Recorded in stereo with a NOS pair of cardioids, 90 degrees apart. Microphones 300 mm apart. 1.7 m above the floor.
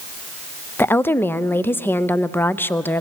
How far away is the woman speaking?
About 0.6 m.